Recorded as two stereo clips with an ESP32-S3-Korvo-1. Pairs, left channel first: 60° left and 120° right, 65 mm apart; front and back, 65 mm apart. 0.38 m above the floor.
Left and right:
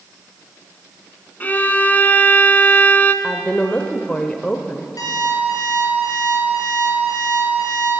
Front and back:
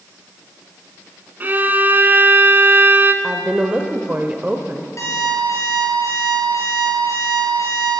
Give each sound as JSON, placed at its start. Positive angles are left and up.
{"t": 1.4, "sound": "a violin", "azimuth_deg": 120, "distance_m": 0.9}
{"t": 3.2, "sound": "a woman speaking", "azimuth_deg": 125, "distance_m": 1.0}
{"t": 5.0, "sound": "an alarm clock", "azimuth_deg": 40, "distance_m": 4.5}